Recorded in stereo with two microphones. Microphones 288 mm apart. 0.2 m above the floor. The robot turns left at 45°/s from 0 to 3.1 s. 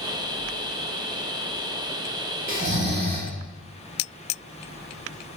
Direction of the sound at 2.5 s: 45° right (ahead or behind).